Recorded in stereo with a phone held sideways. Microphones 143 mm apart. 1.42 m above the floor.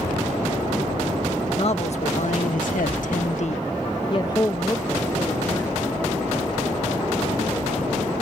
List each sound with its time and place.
1.6 s a man speaking: 45° left (ahead or behind); by 8.1 s centre (ahead or behind)